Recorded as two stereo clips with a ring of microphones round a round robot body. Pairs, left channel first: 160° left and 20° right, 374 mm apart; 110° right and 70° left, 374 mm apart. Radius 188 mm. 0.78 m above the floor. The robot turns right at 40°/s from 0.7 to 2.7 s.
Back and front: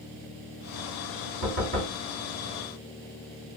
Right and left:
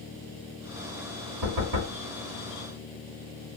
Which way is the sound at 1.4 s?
25° left.